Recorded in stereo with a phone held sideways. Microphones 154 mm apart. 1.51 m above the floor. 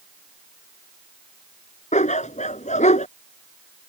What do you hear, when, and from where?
1.9 s a dog barking: 50° left (ahead or behind)